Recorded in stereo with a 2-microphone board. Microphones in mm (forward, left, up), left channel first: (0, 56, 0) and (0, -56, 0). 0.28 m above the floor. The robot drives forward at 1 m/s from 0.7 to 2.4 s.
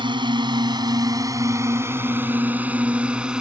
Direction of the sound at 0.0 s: 45° right (ahead or behind).